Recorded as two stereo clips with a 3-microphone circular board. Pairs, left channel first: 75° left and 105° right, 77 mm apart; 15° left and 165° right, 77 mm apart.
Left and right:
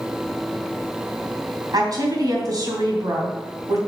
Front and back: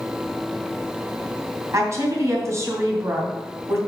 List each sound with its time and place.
1.7 s a woman speaking: 120° right, 3 m